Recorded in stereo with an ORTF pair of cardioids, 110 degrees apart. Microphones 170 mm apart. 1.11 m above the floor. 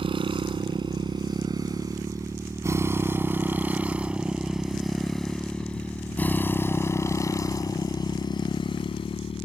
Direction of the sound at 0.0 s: 30° right.